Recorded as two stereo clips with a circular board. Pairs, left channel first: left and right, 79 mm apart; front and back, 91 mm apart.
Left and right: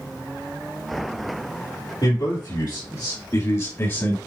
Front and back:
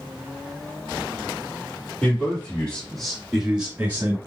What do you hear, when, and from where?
2.0 s a man speaking: 70° left, 3 m; by 4.2 s 135° left, 1.9 m